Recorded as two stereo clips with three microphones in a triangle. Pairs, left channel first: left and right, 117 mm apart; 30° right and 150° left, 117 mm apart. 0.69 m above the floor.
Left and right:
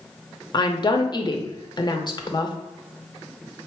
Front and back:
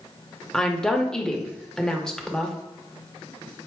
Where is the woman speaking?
50° left, 0.7 m.